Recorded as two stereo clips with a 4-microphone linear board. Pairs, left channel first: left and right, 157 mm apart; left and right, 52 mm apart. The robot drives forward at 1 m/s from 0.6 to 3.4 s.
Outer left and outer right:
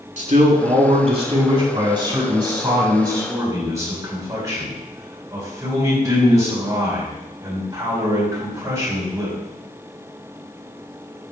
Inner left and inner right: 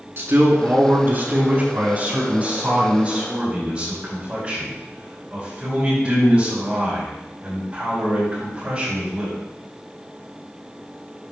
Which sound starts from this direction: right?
A man speaking, at 0.2 s.